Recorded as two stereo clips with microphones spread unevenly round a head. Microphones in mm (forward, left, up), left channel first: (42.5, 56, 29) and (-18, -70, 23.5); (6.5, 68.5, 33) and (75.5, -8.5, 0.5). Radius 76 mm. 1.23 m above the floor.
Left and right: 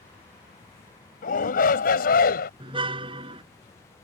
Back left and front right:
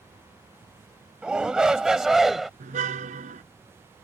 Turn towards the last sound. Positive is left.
turn(degrees=-60)